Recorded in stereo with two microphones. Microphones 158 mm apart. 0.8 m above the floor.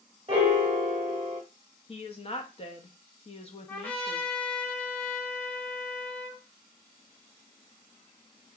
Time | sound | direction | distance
0.3 | a piano | 40° right (ahead or behind) | 0.7 m
1.9 | a woman speaking | 40° left (ahead or behind) | 0.5 m
3.7 | a trumpet | 10° left (ahead or behind) | 0.9 m